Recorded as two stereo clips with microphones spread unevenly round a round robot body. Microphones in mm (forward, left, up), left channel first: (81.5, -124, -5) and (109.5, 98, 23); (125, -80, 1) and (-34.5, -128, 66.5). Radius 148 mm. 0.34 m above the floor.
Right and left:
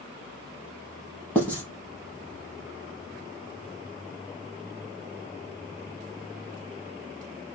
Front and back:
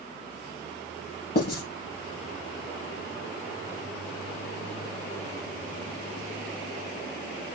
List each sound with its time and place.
1.4 s writing: 15° right, 3.5 m